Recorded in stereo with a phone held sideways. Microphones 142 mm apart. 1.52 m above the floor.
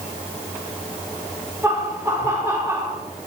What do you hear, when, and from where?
1.6 s laughter: 20° right (ahead or behind), 6 m